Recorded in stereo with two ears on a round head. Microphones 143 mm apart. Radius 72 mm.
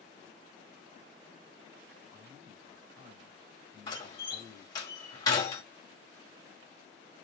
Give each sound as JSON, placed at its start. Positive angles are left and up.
{"t": 2.1, "sound": "a man speaking", "side_deg": -20, "distance_m": 1.7}
{"t": 3.9, "sound": "a door slam", "side_deg": 25, "distance_m": 1.7}